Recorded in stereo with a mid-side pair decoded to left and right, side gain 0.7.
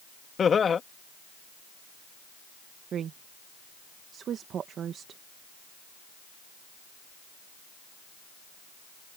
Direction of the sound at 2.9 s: 40° right.